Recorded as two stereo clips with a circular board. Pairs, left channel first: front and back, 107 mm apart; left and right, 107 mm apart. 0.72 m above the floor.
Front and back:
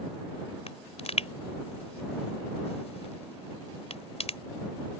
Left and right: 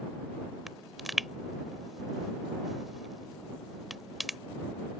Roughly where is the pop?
Ahead.